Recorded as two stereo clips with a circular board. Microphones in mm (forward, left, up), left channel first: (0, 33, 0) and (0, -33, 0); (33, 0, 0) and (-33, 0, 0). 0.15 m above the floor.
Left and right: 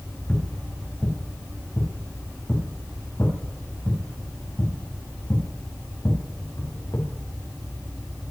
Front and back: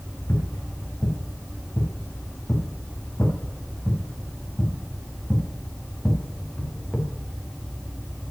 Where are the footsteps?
30° left, 4.5 m; by 7.1 s 85° left, 4.5 m.